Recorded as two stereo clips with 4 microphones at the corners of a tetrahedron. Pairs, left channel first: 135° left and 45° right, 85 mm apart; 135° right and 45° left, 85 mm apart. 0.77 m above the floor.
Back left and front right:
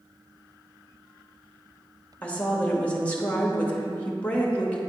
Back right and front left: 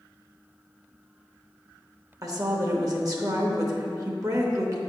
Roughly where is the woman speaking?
Left.